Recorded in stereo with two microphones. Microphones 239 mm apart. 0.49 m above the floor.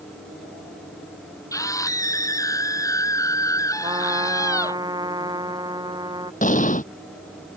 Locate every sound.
1.5 s a scream: 15° left (ahead or behind)
3.8 s a trumpet: 15° right (ahead or behind)
6.4 s an explosion: 35° left (ahead or behind)